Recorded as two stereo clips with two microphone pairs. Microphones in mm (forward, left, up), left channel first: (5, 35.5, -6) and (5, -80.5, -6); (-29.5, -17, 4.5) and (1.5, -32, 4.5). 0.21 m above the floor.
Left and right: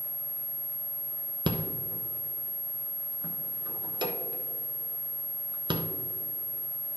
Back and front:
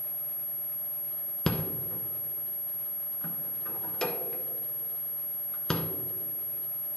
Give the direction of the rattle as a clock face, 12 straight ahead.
5 o'clock.